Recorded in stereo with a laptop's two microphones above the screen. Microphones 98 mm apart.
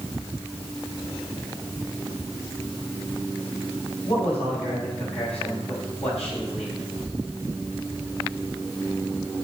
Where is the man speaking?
85° left, 5 m.